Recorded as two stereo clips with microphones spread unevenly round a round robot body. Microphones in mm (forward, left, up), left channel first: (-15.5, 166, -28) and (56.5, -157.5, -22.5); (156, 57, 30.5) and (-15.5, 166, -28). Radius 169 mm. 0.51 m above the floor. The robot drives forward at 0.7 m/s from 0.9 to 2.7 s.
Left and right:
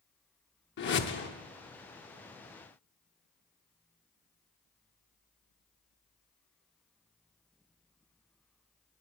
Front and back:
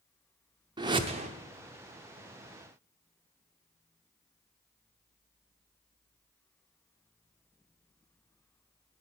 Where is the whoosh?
135° left, 0.7 m; by 1.3 s 155° left, 0.9 m.